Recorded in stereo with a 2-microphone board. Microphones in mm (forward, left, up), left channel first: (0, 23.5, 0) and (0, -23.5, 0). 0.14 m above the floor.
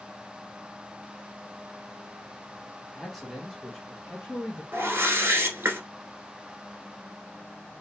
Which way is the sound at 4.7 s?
50° right (ahead or behind).